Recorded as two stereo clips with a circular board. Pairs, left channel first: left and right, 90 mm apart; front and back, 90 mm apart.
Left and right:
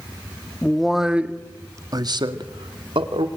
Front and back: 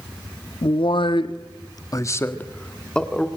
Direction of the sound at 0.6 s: 5° left.